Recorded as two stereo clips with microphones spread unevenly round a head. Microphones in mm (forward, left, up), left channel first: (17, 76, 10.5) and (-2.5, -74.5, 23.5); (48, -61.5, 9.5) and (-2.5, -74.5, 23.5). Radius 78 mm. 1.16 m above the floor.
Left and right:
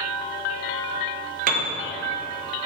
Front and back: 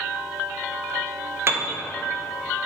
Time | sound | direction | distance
1.5 | a piano | 125° right | 1.0 m